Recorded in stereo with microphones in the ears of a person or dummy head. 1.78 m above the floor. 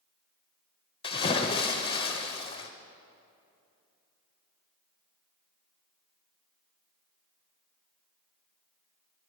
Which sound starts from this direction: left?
A splash, at 1.0 s.